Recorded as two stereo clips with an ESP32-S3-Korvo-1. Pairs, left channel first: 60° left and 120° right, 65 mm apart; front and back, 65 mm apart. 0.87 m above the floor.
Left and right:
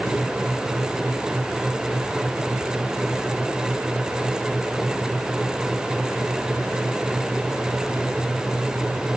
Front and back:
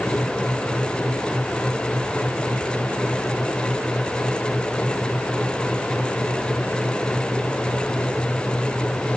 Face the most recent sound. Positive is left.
No sound to turn to.